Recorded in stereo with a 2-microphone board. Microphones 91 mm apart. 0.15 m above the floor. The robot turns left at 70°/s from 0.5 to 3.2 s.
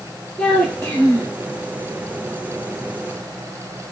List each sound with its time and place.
0.4 s a child speaking: 175° left, 1.7 m; by 1.4 s 115° left, 1.7 m